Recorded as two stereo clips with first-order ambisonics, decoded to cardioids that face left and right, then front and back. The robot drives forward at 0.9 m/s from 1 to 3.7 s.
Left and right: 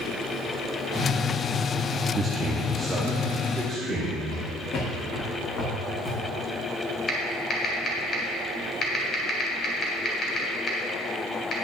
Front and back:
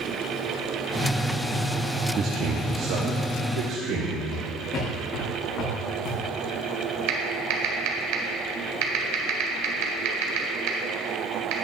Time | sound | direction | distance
2.1 | a man speaking | 150° right | 0.6 m
4.3 | footsteps | 60° left | 3.5 m
7.1 | typing on a keyboard | 160° left | 1.7 m